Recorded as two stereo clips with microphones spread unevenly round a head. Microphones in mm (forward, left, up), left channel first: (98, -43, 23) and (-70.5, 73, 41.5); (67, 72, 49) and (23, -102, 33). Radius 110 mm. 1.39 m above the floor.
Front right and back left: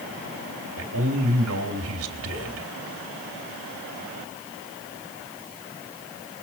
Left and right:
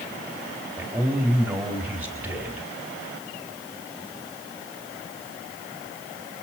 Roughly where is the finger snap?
I don't hear a finger snap.